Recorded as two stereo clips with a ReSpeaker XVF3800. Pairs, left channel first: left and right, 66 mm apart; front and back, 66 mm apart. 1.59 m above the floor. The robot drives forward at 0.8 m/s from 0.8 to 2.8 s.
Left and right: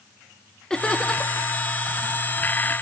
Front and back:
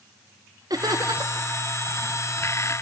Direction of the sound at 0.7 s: 170° left.